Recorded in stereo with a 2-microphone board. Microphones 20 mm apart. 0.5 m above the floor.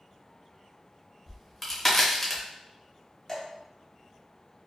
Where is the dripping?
25° left (ahead or behind), 0.9 m.